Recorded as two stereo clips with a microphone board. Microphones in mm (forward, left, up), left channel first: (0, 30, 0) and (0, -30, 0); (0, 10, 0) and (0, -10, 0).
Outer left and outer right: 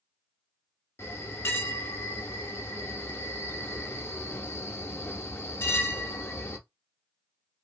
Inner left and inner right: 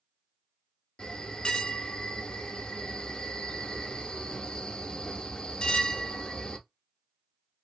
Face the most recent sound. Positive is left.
turn(degrees=45)  # may be behind; listen again after turning